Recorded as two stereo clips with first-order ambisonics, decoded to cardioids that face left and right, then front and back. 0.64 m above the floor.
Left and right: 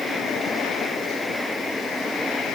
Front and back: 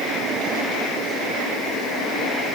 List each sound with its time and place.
Only background noise.